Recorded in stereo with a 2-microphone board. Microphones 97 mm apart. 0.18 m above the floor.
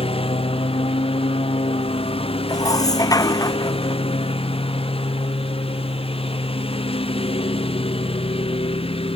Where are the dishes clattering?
40° left (ahead or behind).